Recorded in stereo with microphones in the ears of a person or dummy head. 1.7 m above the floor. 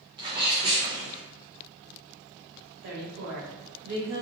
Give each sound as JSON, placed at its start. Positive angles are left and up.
{"t": 0.2, "sound": "a sneeze", "side_deg": -25, "distance_m": 0.8}
{"t": 2.8, "sound": "a woman speaking", "side_deg": -70, "distance_m": 1.0}